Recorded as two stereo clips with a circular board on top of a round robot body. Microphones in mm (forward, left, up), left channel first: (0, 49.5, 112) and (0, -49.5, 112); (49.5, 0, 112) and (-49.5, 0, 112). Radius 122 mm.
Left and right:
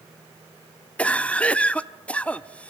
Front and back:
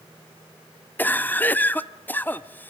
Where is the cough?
35° left, 1.0 m.